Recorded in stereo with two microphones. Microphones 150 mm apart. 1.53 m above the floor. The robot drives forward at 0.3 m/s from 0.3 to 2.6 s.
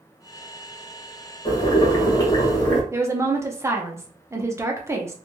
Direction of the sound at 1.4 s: 30° left (ahead or behind).